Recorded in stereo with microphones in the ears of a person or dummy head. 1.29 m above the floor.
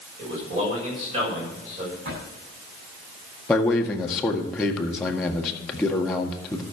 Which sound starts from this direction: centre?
A man speaking, at 3.5 s.